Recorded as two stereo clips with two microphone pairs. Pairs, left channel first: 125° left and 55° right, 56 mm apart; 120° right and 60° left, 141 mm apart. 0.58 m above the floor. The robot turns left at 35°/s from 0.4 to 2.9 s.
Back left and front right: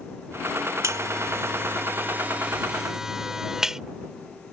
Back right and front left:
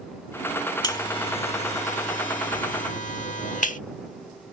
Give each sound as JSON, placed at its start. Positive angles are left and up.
{"t": 0.8, "sound": "a buzzer", "azimuth_deg": -65}